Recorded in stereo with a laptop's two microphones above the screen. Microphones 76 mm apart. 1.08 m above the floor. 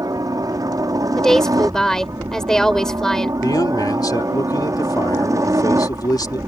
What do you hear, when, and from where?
0.0 s a helicopter: 60° right (ahead or behind); by 6.5 s 45° right (ahead or behind)
1.2 s a woman speaking: 5° left (ahead or behind)
3.4 s a man speaking: 65° left (ahead or behind)